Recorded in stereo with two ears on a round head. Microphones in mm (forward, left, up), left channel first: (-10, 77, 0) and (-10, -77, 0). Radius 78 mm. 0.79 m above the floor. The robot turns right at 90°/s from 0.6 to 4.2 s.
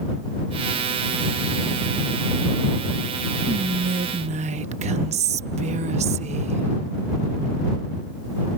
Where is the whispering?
40° right (ahead or behind).